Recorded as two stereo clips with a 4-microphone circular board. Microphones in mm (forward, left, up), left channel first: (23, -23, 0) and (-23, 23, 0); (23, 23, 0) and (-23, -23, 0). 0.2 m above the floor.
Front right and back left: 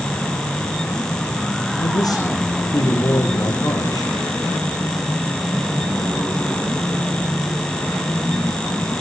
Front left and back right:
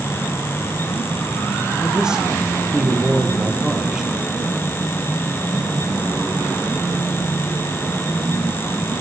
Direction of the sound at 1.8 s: 55° right.